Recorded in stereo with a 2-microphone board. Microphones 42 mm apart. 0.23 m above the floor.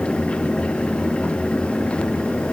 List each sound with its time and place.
Only background noise.